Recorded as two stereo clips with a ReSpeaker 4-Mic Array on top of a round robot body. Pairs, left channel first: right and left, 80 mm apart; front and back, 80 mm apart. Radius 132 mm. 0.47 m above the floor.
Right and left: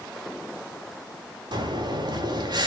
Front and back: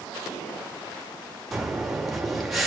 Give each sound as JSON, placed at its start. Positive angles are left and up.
{"t": 1.5, "sound": "breathing", "azimuth_deg": 90, "distance_m": 2.5}